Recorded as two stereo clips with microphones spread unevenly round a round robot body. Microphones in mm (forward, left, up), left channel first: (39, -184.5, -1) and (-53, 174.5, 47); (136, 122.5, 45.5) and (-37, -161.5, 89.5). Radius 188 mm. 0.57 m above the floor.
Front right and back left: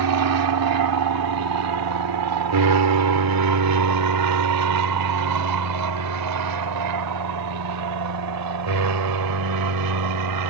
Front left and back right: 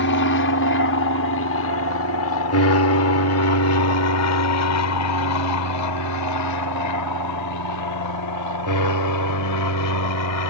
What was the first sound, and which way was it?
An aircraft, 90° left.